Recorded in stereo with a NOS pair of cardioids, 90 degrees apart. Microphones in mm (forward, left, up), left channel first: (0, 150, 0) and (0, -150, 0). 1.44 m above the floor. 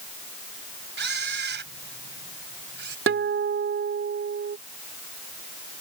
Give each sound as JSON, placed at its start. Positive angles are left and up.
{"t": 1.0, "sound": "a camera shutter", "azimuth_deg": -40}
{"t": 3.1, "sound": "a guitar", "azimuth_deg": -45}